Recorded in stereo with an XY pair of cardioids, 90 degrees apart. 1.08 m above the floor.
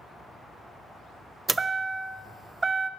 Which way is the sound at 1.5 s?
25° right.